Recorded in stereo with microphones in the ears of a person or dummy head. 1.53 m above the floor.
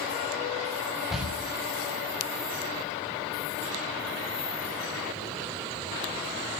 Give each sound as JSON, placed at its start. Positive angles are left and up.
{"t": 1.1, "sound": "a door slam", "side_deg": -5, "distance_m": 6.5}